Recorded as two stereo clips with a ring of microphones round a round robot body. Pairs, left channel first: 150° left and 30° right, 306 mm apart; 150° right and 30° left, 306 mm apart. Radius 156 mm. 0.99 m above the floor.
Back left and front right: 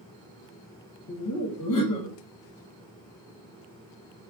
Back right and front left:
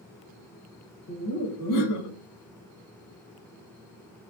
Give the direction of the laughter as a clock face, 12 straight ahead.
6 o'clock.